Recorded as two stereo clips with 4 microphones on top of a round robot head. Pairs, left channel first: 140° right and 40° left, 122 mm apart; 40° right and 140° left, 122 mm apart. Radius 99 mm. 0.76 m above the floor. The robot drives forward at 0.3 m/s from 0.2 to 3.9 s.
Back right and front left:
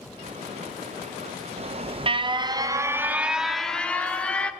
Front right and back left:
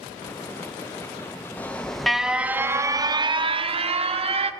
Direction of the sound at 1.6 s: 35° left.